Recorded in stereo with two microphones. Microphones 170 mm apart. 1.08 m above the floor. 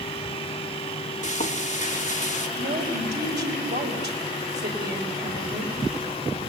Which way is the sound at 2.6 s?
85° right.